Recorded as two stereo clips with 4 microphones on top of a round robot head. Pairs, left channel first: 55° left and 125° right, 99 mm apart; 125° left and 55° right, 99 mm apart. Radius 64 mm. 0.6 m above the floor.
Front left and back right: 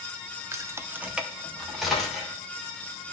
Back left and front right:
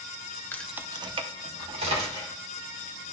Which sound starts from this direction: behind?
Keys jangling, at 0.5 s.